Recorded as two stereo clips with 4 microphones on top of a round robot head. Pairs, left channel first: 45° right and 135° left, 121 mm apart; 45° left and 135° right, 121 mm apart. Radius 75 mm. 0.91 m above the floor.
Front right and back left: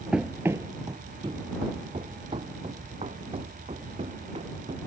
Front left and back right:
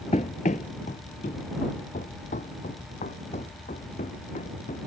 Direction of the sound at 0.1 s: 50° left.